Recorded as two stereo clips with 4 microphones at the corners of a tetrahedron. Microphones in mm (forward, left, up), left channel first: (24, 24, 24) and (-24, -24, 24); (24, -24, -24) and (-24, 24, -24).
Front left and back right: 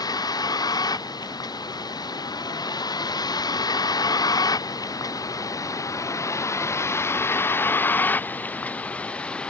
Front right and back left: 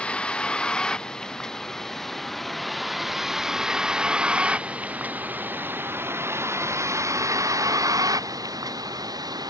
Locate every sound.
0.0 s a vehicle: 30° left; by 9.5 s 120° left